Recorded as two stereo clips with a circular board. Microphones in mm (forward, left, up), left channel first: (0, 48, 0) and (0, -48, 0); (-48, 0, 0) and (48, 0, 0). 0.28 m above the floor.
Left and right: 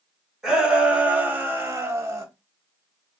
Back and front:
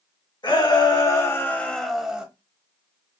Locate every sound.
0.4 s a shout: 170° right, 1.6 m; by 2.2 s 70° right, 1.2 m